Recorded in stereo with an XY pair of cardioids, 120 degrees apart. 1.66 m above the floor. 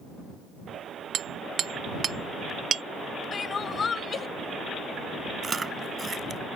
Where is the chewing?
25° right.